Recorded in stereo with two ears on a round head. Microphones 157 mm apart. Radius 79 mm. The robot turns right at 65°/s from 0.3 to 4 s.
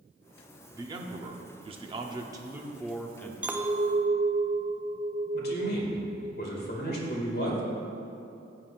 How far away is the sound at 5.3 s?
About 2 m.